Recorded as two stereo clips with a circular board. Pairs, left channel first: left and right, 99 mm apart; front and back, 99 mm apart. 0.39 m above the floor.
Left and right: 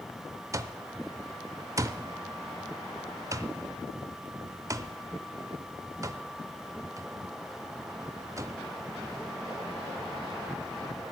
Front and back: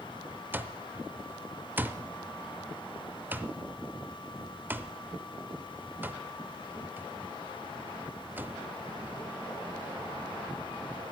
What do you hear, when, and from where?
0.5 s an alarm clock: 120° right, 0.6 m